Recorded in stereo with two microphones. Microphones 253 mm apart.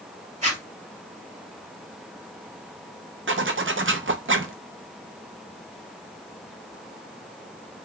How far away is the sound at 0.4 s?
About 1.8 m.